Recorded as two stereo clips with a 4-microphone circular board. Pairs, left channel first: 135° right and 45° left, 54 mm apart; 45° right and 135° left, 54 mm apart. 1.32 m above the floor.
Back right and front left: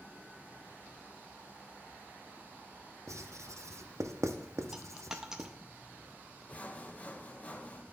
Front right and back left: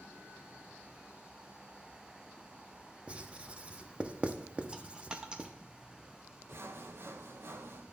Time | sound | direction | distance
3.1 | writing | 65° left | 0.6 m
4.7 | a dropped coin | 110° left | 0.6 m
6.5 | sawing | 165° left | 0.6 m